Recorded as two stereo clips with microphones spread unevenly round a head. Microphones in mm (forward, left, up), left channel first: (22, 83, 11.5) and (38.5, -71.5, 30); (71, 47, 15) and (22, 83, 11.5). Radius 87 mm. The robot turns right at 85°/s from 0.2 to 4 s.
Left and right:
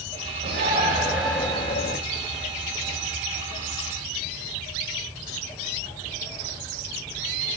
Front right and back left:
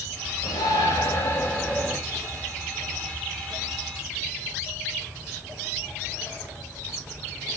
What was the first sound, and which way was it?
A shout, 65° right.